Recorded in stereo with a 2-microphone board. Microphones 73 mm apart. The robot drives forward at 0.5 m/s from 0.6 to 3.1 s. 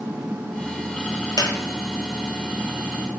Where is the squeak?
70° left (ahead or behind), 0.7 m; by 1.5 s 65° left (ahead or behind), 0.7 m.